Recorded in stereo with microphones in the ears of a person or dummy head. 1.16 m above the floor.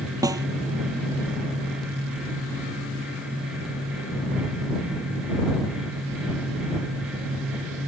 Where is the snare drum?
15° right (ahead or behind).